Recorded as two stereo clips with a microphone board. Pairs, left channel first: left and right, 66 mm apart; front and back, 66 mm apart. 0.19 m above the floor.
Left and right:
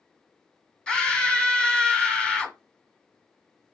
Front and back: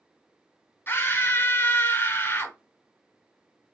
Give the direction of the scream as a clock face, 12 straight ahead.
11 o'clock.